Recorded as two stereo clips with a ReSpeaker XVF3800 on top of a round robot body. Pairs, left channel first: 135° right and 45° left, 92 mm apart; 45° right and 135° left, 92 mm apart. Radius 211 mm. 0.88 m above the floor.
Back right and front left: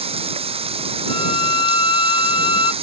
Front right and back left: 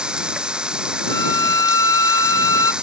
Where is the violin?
100° right.